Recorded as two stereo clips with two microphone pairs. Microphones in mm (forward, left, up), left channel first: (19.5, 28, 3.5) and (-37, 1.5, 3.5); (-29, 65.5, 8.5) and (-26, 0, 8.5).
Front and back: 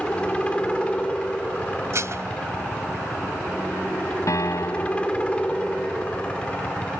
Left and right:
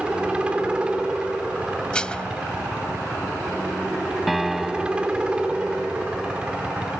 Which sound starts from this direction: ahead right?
A helicopter, at 0.0 s.